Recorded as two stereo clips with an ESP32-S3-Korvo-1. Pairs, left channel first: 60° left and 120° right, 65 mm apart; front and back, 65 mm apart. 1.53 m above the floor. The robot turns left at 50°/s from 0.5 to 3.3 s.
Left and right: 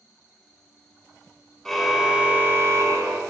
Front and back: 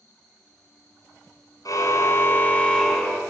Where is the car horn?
25° right, 3 m; by 3.2 s 100° right, 3 m.